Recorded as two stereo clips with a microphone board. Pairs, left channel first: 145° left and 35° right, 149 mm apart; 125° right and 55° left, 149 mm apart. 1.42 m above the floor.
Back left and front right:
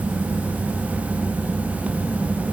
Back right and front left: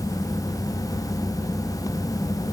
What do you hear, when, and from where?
Only background noise.